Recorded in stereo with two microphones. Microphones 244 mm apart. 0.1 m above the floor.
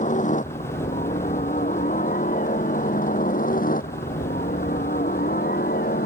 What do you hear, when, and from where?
0.0 s a helicopter: 30° left (ahead or behind); by 6.1 s 35° left (ahead or behind)